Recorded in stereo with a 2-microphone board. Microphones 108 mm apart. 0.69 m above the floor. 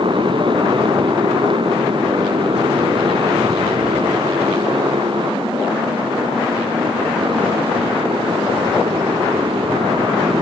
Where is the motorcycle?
50° right (ahead or behind); by 10.4 s 55° right (ahead or behind).